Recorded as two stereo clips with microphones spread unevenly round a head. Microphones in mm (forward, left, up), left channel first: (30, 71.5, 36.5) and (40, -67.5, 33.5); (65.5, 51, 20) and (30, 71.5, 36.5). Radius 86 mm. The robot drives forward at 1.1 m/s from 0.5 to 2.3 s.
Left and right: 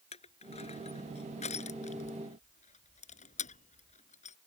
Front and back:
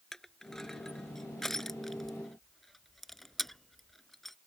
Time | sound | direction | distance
0.1 | crushing | 50° left | ?